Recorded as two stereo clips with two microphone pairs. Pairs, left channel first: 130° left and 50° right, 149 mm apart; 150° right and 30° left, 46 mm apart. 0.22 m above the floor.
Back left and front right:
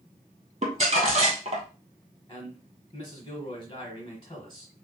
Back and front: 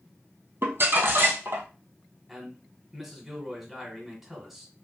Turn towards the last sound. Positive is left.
turn(degrees=105)